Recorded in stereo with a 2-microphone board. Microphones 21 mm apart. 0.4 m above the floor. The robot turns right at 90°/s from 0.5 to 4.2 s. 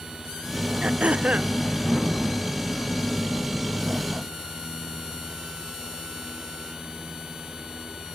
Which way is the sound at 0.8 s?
125° right.